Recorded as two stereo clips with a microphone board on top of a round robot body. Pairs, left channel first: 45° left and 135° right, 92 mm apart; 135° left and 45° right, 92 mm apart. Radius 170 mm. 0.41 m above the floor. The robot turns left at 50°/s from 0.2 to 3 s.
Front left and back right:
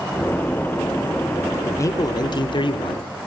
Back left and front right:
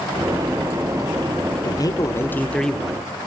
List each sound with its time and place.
1.6 s a man speaking: 105° left, 1.2 m; by 3.1 s 35° left, 1.2 m